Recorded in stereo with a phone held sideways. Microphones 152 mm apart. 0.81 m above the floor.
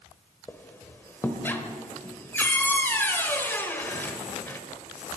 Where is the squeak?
15° left (ahead or behind), 1.2 m.